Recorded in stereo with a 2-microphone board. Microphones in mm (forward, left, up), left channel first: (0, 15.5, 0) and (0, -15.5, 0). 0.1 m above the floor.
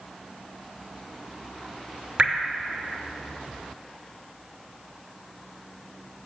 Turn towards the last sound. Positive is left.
turn(degrees=-40)  # may be behind; listen again after turning